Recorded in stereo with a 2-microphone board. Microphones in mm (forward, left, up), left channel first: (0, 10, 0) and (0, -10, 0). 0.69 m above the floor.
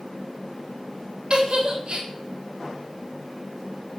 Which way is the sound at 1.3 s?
60° right (ahead or behind).